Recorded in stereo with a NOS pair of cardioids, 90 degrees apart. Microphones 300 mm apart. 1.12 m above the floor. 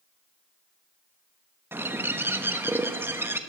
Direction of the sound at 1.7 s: 5° right.